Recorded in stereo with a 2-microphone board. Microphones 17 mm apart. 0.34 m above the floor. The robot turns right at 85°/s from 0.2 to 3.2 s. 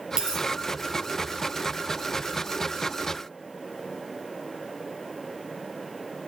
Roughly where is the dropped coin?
Right.